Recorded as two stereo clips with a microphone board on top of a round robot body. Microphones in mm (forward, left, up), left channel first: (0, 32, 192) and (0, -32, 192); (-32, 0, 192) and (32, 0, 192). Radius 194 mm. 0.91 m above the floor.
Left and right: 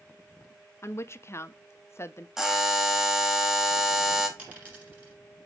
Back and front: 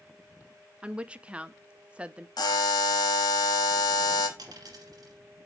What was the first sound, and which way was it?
A woman speaking, 65° left.